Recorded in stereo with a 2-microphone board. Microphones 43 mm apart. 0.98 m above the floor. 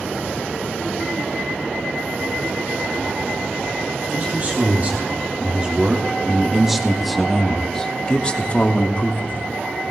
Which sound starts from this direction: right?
A man speaking, at 4.1 s.